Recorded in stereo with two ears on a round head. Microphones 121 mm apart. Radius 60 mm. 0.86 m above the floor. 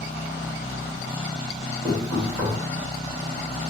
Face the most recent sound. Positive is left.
turn(degrees=-10)  # may be behind; listen again after turning